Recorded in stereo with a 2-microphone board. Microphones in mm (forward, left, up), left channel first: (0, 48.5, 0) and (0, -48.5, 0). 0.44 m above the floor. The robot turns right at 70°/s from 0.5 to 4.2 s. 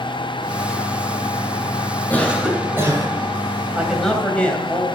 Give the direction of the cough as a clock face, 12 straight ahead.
7 o'clock.